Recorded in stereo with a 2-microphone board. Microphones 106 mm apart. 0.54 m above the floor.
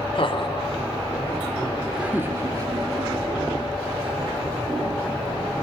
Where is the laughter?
55° left (ahead or behind), 2 m; by 4.5 s 55° right (ahead or behind), 3.5 m.